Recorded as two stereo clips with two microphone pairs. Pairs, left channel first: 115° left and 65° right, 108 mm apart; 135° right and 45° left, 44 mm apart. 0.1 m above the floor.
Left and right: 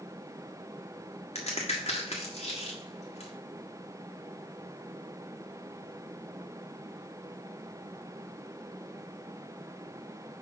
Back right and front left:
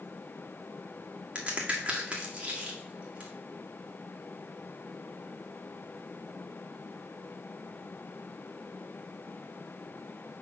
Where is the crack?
100° left, 1.4 m.